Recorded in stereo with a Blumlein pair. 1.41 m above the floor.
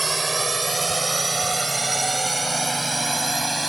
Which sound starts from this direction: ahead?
A drone, at 0.0 s.